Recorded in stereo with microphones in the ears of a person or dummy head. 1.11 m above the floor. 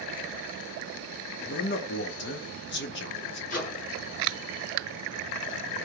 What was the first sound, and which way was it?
A man speaking, 50° left (ahead or behind).